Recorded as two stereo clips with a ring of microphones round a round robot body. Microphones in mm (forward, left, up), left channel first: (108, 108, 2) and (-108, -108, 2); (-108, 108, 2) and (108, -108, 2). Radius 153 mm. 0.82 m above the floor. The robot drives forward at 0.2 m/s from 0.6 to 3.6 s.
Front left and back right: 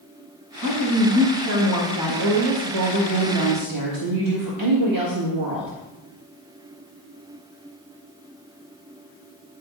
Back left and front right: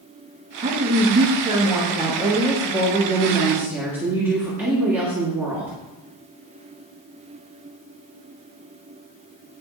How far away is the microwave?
I don't hear a microwave.